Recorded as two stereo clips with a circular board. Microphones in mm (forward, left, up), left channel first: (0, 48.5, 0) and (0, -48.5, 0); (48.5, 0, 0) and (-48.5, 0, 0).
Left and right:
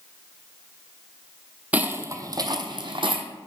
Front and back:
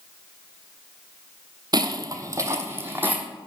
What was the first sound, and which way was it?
Footsteps, 160° right.